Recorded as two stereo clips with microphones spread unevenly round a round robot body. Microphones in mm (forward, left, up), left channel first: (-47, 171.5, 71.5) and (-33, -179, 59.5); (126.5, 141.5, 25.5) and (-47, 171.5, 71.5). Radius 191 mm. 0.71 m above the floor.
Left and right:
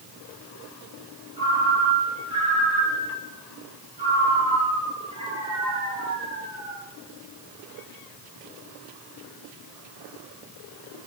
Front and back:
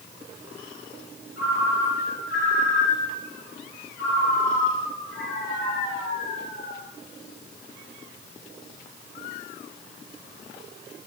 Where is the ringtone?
10° right, 6 m.